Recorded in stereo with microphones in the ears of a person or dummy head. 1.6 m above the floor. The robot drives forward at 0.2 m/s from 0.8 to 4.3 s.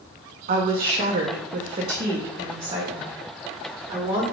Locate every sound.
0.5 s a woman speaking: 45° right (ahead or behind), 0.5 m; by 4.2 s 20° right (ahead or behind), 1.1 m